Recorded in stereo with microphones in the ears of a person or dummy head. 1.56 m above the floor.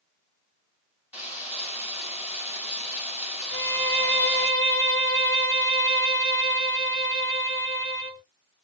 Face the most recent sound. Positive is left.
turn(degrees=-40)  # may be behind; listen again after turning